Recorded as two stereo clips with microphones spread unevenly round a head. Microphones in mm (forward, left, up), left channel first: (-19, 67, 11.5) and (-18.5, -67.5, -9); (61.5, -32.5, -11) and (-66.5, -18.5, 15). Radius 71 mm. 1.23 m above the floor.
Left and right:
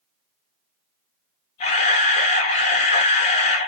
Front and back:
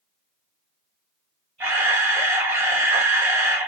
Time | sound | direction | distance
1.6 | a camera shutter | 95° left | 0.6 m